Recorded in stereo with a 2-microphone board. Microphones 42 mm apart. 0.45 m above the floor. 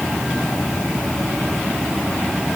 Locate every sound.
Only background noise.